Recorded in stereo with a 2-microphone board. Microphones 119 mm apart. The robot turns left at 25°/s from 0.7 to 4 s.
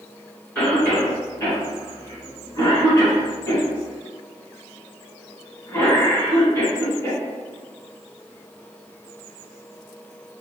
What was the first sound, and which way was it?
A cough, 10° left (ahead or behind).